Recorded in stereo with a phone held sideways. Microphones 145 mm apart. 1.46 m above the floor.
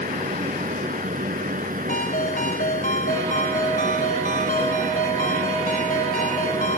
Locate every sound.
0.0 s a fan: 75° right (ahead or behind)
1.9 s a ringtone: 75° left (ahead or behind)